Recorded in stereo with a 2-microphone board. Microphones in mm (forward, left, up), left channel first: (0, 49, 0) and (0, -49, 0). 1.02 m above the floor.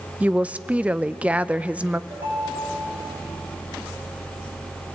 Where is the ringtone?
35° right (ahead or behind), 5.5 m.